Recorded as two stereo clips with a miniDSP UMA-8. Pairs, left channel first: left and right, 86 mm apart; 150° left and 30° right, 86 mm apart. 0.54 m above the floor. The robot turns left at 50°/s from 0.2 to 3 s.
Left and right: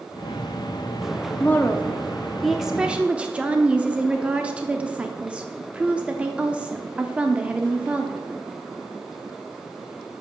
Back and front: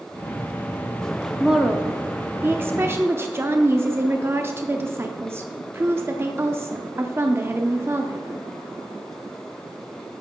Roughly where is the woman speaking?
Ahead left.